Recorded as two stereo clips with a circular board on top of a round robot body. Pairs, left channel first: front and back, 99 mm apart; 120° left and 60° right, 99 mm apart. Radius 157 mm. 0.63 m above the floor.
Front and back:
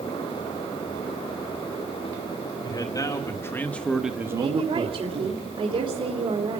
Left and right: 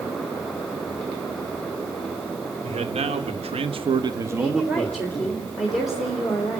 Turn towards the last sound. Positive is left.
turn(degrees=-150)